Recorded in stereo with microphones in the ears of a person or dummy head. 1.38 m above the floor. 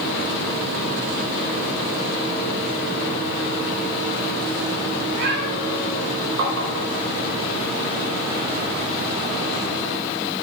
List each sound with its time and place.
5.0 s a cat meowing: 70° right (ahead or behind), 5 m
6.4 s tapping: 75° right (ahead or behind), 4 m